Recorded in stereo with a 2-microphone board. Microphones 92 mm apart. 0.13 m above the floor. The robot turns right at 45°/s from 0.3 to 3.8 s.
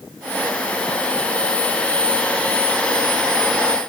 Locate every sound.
Only background noise.